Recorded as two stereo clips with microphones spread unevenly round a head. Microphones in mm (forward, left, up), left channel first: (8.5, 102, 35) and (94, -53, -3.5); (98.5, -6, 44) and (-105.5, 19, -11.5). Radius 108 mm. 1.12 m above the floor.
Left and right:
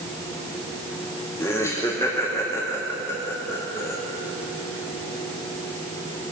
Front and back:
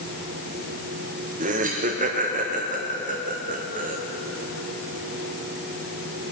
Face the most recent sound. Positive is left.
turn(degrees=-160)